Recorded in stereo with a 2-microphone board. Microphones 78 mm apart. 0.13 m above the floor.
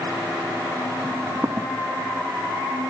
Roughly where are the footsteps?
Right.